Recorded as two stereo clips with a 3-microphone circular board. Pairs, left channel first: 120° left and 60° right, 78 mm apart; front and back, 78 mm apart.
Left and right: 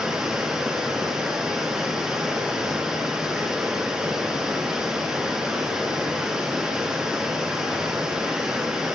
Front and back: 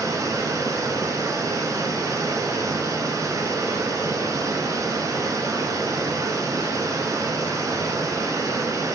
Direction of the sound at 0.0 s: 140° right.